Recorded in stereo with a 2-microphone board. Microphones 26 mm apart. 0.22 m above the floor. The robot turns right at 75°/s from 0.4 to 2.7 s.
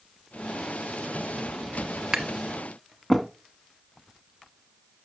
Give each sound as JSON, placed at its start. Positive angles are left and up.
{"t": 2.1, "sound": "tapping", "side_deg": -20, "distance_m": 0.9}